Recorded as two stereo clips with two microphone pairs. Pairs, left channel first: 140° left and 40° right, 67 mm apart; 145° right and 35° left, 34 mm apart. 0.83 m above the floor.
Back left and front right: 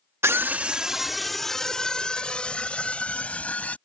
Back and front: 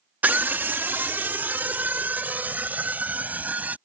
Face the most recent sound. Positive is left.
turn(degrees=70)